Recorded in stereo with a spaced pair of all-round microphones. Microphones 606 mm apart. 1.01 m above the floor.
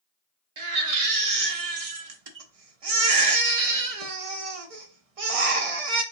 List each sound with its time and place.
0.6 s a baby crying: 65° right (ahead or behind), 0.7 m